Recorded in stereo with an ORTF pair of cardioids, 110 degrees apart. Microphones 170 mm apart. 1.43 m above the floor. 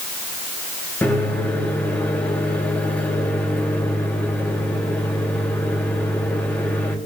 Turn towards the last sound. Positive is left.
turn(degrees=10)